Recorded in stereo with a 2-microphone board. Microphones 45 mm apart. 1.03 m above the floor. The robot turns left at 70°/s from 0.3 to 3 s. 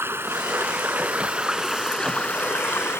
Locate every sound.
0.0 s running water: 80° right; by 3.0 s 95° left